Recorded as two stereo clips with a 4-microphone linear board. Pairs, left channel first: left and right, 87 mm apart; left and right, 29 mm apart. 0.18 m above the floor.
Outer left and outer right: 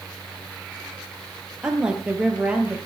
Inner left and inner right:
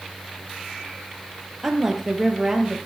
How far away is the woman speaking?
About 4.5 m.